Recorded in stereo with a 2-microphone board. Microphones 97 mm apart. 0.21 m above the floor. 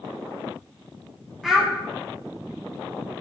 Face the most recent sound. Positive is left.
turn(degrees=0)  # may be behind; listen again after turning